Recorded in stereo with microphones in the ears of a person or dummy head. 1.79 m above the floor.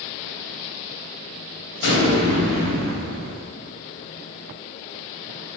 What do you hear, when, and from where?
1.8 s an explosion: 65° left (ahead or behind), 1.6 m